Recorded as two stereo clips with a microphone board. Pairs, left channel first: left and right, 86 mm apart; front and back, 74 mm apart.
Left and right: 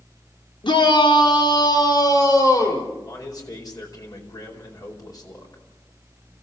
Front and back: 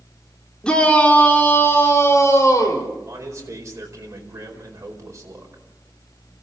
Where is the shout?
80° left, 3 m; by 2.9 s 45° left, 4 m.